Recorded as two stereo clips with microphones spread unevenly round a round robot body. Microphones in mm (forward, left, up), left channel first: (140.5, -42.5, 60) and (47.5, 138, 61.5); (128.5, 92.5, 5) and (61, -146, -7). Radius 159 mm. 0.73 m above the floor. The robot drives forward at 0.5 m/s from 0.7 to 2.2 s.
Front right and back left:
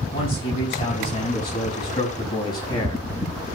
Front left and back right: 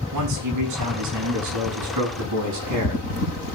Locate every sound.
0.1 s a man speaking: 135° right, 6.5 m; by 3.5 s 140° right, 7 m